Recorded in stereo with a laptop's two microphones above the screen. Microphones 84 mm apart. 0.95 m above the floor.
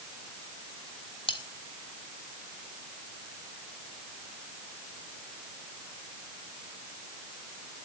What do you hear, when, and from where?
1.3 s cutlery clinking: 85° left, 1.6 m